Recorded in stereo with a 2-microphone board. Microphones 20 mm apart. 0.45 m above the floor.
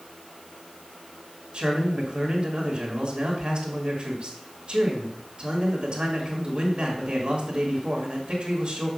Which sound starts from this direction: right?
A man speaking, at 1.5 s.